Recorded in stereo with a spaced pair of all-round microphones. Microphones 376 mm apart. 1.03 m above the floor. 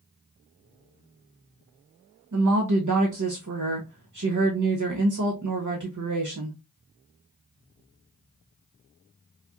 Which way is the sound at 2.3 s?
50° right (ahead or behind).